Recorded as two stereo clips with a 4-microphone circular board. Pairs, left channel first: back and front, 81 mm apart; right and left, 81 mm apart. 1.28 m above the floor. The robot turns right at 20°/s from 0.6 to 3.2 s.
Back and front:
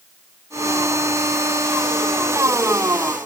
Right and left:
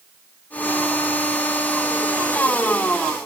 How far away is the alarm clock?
I don't hear an alarm clock.